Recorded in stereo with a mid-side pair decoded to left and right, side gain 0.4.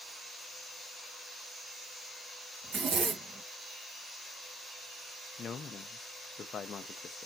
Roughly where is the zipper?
Ahead right.